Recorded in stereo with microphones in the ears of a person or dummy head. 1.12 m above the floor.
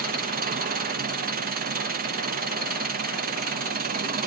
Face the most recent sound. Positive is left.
turn(degrees=-50)  # may be behind; listen again after turning